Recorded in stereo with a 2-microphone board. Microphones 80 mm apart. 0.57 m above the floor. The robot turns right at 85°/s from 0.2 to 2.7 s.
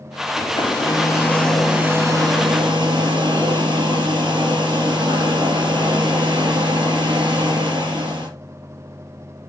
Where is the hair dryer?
75° left, 3 m; by 8.3 s 85° right, 3 m.